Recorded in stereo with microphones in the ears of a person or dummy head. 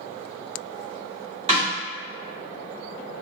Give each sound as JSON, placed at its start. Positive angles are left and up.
{"t": 1.5, "sound": "a snare drum", "side_deg": -30, "distance_m": 1.4}